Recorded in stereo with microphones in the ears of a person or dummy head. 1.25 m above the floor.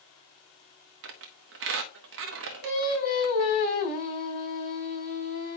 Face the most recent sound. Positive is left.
turn(degrees=40)  # may be behind; listen again after turning